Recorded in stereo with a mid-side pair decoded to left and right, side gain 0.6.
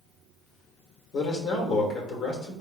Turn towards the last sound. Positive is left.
turn(degrees=55)